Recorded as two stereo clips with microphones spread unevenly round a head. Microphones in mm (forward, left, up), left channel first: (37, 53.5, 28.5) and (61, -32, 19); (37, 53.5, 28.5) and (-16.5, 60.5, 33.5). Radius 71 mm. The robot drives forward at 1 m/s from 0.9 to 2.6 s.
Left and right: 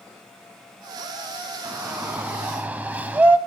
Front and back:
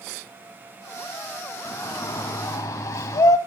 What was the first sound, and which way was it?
A shout, straight ahead.